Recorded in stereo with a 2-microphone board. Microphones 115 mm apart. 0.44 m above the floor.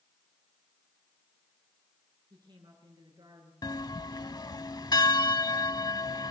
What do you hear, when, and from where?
2.3 s a woman speaking: 35° right (ahead or behind), 8 m
3.6 s a bell: 35° left (ahead or behind), 0.7 m